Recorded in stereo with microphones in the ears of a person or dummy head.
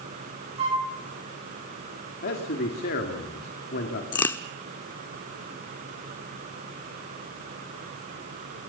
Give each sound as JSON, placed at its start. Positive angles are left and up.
{"t": 0.6, "sound": "a flute", "side_deg": -35, "distance_m": 9.0}
{"t": 2.2, "sound": "a man speaking", "side_deg": 45, "distance_m": 2.5}
{"t": 4.1, "sound": "a crack", "side_deg": 15, "distance_m": 0.9}